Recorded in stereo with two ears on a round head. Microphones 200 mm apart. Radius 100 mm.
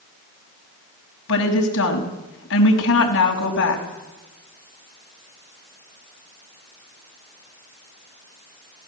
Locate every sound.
1.3 s a woman speaking: 65° left (ahead or behind), 5.5 m